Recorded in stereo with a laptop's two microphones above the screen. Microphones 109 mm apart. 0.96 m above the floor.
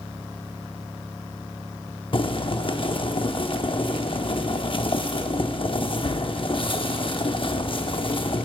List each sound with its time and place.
2.1 s boiling: 50° left (ahead or behind), 0.7 m